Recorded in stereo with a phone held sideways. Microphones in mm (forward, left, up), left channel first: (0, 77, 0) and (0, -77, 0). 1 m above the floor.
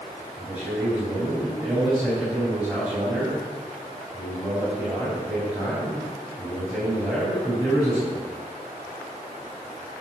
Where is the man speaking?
5° right (ahead or behind), 5.5 m.